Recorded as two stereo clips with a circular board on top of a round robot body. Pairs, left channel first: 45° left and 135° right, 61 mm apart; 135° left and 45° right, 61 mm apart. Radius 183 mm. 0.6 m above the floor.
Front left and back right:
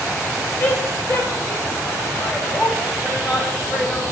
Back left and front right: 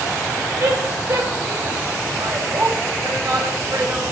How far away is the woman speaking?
About 3.5 m.